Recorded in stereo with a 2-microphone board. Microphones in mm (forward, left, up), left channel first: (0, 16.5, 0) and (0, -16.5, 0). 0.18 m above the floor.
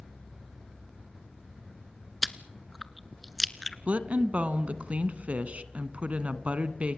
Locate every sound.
2.2 s chewing: centre (ahead or behind), 1.0 m
3.9 s a woman speaking: 45° right (ahead or behind), 1.4 m